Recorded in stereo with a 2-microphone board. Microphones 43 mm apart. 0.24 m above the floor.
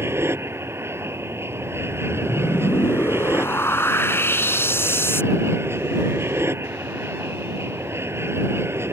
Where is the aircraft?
70° right (ahead or behind).